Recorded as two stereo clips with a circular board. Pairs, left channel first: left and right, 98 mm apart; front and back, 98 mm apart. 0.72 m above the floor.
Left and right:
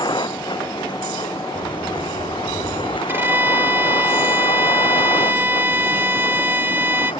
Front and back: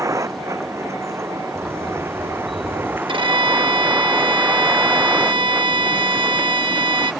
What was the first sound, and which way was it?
A vehicle, 125° left.